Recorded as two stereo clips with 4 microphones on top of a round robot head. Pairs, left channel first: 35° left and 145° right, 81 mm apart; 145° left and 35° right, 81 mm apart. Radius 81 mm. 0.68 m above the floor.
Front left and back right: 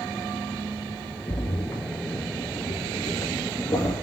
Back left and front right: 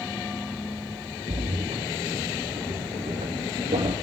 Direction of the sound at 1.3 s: 25° right.